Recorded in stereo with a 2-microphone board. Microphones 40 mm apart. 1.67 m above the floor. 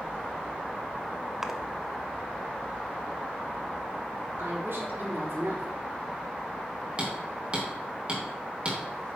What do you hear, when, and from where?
1.4 s a splash: 10° right (ahead or behind), 0.6 m
4.4 s a woman speaking: 80° right, 4 m
7.0 s hammering: 30° right (ahead or behind), 2.5 m